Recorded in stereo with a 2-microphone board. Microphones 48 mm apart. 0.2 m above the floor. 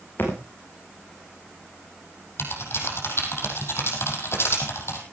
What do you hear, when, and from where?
0.2 s a thud: 45° left (ahead or behind), 6 m
2.4 s typing on a keyboard: 60° left (ahead or behind), 5 m